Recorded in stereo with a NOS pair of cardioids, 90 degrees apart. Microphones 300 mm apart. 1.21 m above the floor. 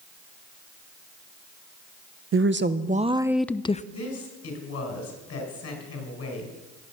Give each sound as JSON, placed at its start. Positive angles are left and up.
{"t": 2.3, "sound": "a woman speaking", "azimuth_deg": -45, "distance_m": 0.8}
{"t": 3.9, "sound": "a woman speaking", "azimuth_deg": 55, "distance_m": 5.0}